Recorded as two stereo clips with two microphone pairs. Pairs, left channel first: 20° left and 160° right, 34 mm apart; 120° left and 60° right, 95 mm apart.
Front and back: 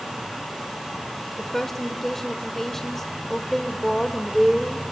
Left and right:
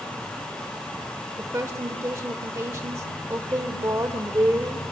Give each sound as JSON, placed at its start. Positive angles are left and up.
{"t": 1.4, "sound": "a woman speaking", "azimuth_deg": -55, "distance_m": 0.9}